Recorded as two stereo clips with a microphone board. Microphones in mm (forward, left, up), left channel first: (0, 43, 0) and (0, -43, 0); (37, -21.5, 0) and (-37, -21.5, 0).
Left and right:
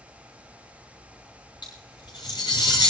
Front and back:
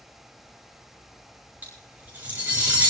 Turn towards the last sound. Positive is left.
turn(degrees=115)